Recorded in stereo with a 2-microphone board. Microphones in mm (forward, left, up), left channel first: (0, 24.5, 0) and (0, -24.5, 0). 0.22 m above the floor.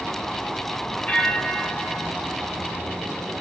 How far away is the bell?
About 0.6 m.